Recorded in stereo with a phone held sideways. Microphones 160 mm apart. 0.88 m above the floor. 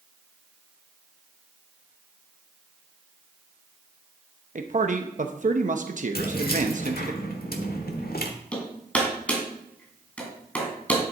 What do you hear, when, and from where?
4.5 s a man speaking: 55° right (ahead or behind), 0.8 m
6.2 s keys jangling: 75° left (ahead or behind), 1.4 m
8.5 s hammering: 10° left (ahead or behind), 2.5 m